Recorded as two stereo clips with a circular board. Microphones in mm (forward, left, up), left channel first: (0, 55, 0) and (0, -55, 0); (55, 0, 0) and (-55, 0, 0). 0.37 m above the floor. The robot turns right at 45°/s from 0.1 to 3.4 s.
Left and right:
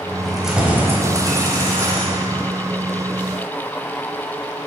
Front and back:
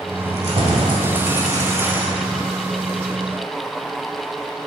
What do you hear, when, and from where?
0.2 s keys jangling: 175° left, 1.3 m; by 2.4 s 90° right, 1.3 m